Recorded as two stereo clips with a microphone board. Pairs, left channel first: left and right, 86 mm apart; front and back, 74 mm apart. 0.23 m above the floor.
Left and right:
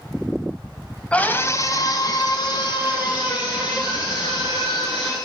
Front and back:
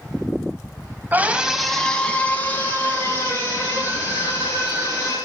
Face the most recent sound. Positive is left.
turn(degrees=50)